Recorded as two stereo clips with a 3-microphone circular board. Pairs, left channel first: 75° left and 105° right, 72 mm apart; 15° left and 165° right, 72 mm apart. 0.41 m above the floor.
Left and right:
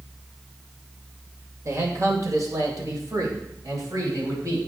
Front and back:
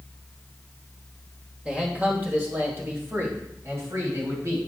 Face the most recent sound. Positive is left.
turn(degrees=-130)